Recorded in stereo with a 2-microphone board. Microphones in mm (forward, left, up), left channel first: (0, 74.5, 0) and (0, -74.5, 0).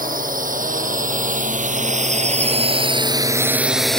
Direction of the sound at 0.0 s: 80° right.